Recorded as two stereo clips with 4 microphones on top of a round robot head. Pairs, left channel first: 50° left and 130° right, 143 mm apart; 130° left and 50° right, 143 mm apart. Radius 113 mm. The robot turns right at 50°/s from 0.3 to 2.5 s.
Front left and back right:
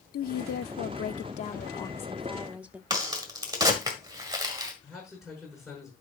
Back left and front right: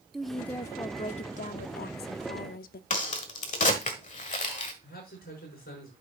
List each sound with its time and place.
0.1 s a woman speaking: 40° left, 0.6 m; by 2.8 s 150° left, 0.6 m
2.9 s a crack: 165° left, 1.5 m
4.8 s a man speaking: 145° left, 6 m